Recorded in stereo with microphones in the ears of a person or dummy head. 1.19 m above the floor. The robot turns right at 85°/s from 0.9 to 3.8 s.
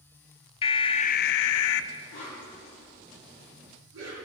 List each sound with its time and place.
0.6 s an alarm: 30° left, 0.6 m; by 1.9 s 115° left, 0.6 m
2.1 s a whoosh: 60° left (ahead or behind), 6.5 m; by 4.2 s 80° right, 6.5 m